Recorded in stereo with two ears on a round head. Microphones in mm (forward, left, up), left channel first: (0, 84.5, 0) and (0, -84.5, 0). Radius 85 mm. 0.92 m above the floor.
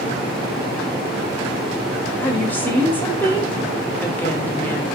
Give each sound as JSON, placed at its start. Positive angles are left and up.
{"t": 2.2, "sound": "a woman speaking", "side_deg": 10, "distance_m": 1.9}